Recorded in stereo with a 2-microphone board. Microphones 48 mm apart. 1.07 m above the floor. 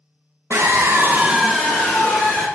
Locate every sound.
0.5 s a scream: 75° right (ahead or behind), 0.8 m; by 2.5 s 45° left (ahead or behind), 1.0 m